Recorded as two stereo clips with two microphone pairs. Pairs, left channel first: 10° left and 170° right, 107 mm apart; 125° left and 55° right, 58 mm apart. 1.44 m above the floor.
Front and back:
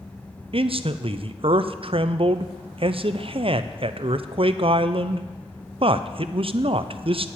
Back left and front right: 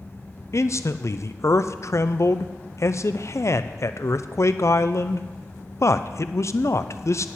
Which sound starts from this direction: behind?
A man speaking, at 0.5 s.